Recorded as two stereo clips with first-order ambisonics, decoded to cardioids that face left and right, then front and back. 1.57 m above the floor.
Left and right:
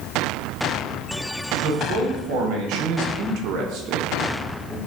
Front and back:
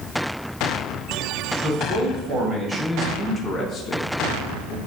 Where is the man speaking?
120° right, 1.5 m; by 4.8 s 5° left, 0.7 m.